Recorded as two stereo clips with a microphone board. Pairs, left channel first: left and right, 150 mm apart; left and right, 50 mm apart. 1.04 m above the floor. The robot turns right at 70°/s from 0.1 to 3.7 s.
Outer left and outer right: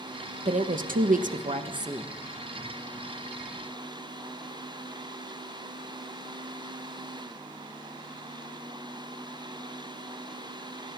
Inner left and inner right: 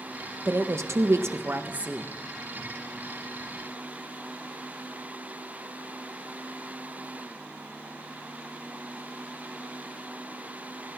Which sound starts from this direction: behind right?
A woman speaking, at 0.5 s.